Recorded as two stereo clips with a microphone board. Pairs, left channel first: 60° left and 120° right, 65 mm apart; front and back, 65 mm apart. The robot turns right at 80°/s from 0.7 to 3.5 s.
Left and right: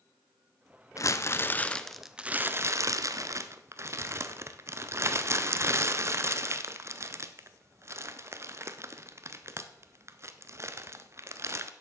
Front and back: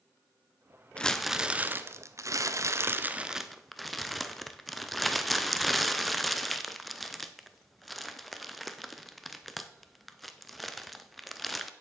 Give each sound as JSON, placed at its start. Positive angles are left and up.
{"t": 1.0, "sound": "crumpling", "azimuth_deg": 70, "distance_m": 0.7}